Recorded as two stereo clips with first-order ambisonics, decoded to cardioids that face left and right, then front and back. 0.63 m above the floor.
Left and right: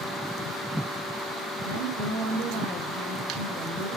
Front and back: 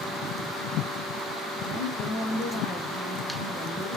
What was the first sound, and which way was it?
A woman speaking, 65° right.